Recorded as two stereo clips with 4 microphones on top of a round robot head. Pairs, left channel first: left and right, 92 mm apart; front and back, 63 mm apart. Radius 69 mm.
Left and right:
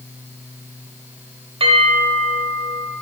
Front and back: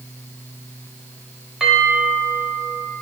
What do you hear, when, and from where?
1.6 s a bell: 100° right, 2 m